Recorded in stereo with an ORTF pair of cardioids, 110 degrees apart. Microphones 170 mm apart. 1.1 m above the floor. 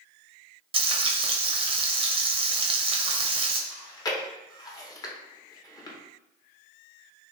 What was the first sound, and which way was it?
Frying, 35° right.